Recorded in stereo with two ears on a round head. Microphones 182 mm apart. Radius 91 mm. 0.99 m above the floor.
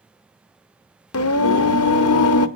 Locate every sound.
1.1 s singing: 85° left, 0.6 m